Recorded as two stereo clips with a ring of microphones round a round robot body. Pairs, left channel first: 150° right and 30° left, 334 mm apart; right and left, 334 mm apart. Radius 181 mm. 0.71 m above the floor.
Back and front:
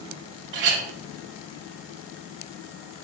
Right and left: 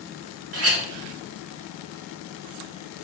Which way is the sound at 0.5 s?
50° left.